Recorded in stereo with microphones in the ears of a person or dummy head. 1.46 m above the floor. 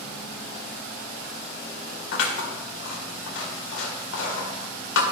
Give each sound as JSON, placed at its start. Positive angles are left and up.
{"t": 2.1, "sound": "scissors", "side_deg": 70, "distance_m": 2.0}